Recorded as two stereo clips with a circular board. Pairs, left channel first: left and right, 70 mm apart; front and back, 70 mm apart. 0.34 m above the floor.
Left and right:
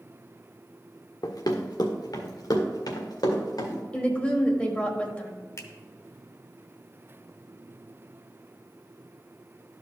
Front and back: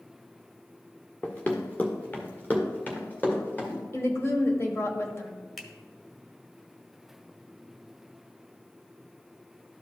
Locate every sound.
1.2 s running footsteps: 70° left, 1.1 m; by 3.8 s 60° left, 3 m
3.9 s a woman speaking: 25° left, 1.2 m
5.6 s a finger snap: 85° left, 1.0 m